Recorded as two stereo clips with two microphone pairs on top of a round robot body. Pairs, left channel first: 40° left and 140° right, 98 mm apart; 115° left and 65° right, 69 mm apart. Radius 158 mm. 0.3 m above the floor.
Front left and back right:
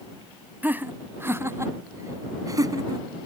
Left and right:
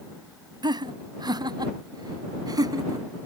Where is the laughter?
65° right; by 3.1 s 90° right.